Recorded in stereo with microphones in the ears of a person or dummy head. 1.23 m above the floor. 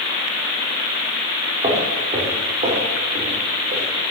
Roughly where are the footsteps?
Right.